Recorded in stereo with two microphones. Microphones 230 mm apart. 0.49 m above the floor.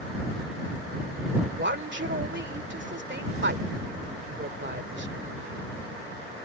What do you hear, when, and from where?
1.6 s a woman speaking: 50° right (ahead or behind)